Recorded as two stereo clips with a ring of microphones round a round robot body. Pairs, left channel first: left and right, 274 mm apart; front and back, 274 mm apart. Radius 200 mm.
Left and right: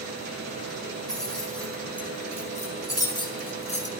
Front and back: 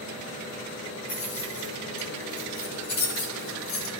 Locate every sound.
1.1 s keys jangling: straight ahead, 5.5 m; by 3.9 s 25° left, 2 m